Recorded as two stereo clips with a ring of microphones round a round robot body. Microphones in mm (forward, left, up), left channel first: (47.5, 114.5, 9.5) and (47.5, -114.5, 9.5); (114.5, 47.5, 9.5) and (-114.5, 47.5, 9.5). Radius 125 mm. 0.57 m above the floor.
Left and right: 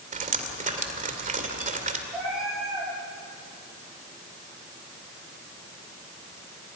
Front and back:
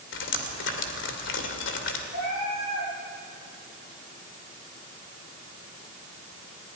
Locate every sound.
0.1 s dripping: 35° right, 2 m
2.1 s a cat meowing: 5° right, 9 m